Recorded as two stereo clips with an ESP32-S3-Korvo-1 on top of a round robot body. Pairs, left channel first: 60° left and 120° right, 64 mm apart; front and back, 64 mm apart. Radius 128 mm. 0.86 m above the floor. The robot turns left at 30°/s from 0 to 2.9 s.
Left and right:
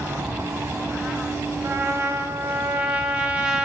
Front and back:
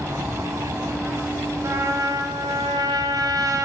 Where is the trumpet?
160° right, 1.1 m; by 3.6 s 160° left, 1.1 m.